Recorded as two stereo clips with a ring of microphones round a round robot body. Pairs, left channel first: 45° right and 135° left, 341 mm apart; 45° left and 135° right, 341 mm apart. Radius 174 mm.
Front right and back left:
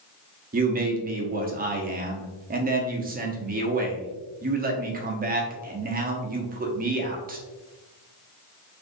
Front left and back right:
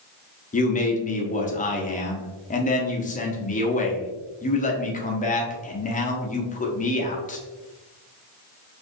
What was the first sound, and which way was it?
A man speaking, 95° left.